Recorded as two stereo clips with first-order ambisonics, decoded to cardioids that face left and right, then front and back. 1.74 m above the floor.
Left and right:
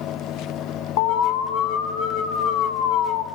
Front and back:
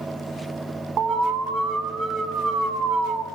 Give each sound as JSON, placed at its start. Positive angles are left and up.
{"t": 1.0, "sound": "an alarm", "azimuth_deg": 120, "distance_m": 2.5}